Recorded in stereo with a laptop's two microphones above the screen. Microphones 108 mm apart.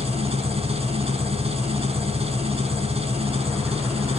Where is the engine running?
70° right (ahead or behind), 6 m.